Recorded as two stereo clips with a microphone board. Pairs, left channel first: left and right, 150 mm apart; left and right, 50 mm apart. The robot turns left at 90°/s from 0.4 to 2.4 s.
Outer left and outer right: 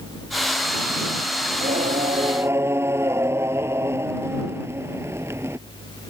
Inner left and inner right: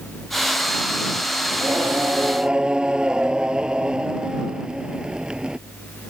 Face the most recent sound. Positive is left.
turn(degrees=-160)